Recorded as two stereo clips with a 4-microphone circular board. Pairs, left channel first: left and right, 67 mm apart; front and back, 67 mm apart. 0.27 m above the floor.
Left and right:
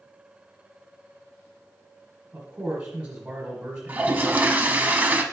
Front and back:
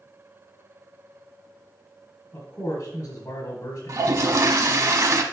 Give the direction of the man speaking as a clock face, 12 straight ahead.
1 o'clock.